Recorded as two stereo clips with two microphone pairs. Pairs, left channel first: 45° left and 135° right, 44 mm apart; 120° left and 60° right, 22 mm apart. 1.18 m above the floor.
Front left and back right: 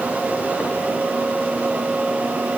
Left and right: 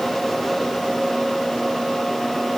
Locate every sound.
Only background noise.